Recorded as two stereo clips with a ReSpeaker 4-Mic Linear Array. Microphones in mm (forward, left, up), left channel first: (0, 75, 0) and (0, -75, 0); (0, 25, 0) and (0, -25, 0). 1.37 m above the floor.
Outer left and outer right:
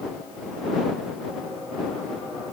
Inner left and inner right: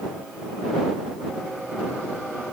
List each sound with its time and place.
Only background noise.